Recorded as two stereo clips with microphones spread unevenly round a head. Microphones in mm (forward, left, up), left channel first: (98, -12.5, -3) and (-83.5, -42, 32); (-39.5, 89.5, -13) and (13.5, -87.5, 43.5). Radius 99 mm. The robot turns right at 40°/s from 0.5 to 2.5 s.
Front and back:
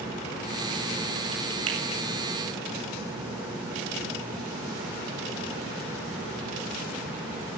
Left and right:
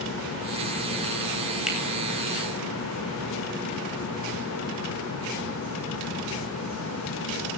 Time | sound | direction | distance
1.7 | a finger snap | 160° right | 8 m